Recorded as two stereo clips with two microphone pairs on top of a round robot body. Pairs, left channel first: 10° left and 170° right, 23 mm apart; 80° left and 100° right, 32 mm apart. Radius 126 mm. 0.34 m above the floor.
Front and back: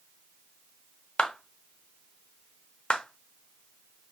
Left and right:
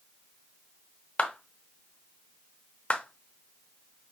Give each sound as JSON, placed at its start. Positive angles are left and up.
{"t": 1.2, "sound": "a clap", "azimuth_deg": 30, "distance_m": 1.0}